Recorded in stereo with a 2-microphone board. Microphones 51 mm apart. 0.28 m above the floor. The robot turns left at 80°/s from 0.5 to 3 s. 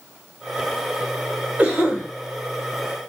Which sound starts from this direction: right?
A cough, at 1.6 s.